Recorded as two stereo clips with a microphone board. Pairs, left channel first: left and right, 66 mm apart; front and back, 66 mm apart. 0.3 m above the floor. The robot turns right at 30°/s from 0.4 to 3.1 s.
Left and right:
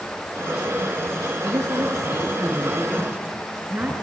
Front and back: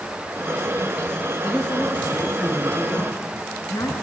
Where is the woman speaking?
80° right, 4.5 m; by 3.9 s 30° right, 4.5 m.